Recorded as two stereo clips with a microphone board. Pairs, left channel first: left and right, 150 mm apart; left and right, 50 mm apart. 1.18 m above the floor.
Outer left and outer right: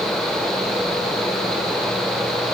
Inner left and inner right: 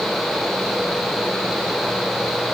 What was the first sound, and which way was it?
Only background noise.